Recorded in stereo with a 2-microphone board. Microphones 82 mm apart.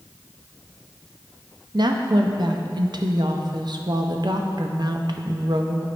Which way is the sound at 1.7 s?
60° right (ahead or behind).